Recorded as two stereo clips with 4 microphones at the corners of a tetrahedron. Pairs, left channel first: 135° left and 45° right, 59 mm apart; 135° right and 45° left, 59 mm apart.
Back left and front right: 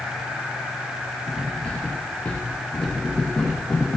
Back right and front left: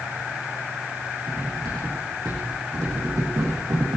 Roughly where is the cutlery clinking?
Ahead left.